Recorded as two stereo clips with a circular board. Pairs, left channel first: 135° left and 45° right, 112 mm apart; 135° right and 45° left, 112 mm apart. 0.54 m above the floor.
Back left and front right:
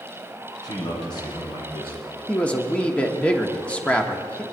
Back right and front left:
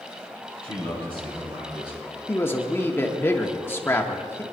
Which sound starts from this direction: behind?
A man speaking, at 2.3 s.